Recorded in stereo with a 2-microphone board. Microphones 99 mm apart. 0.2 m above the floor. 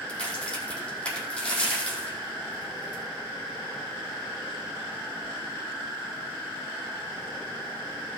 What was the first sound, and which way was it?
A crack, 10° left (ahead or behind).